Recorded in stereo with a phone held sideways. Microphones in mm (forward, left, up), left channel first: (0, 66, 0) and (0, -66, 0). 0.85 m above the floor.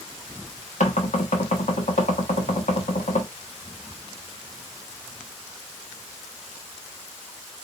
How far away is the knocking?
About 1.3 m.